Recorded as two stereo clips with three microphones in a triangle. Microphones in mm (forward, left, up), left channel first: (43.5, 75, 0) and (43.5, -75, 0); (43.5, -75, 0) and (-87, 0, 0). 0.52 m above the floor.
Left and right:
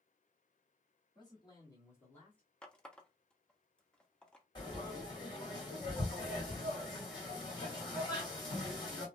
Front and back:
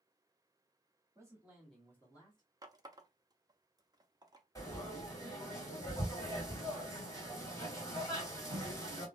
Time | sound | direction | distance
1.1 | a man speaking | 110° left | 1.4 m
2.6 | a running tap | 165° left | 0.5 m
4.5 | frying | 35° left | 2 m